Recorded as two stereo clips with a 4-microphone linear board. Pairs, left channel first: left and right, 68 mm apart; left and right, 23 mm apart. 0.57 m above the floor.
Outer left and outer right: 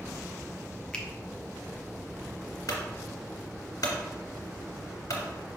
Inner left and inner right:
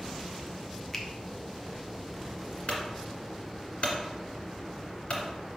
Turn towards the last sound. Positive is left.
turn(degrees=60)  # may be behind; listen again after turning